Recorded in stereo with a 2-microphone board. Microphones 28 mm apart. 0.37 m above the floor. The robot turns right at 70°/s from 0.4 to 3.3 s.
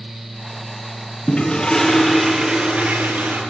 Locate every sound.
1.3 s a toilet flushing: 130° left, 5.5 m; by 3.4 s 90° right, 5.5 m